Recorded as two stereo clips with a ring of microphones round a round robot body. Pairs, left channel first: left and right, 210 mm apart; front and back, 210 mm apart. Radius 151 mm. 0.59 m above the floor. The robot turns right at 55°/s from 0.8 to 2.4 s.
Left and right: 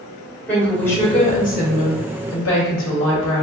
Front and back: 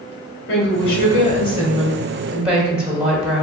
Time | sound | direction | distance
0.5 | a woman speaking | 5° left | 2 m